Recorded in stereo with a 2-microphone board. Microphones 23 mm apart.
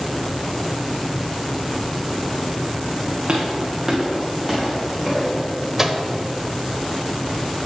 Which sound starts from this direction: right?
Footsteps, at 3.3 s.